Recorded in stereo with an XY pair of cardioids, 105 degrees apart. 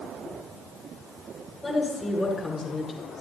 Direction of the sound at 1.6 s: 20° left.